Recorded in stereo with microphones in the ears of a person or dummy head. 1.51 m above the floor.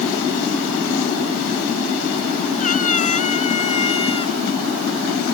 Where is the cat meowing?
45° left (ahead or behind); by 4.3 s 30° left (ahead or behind).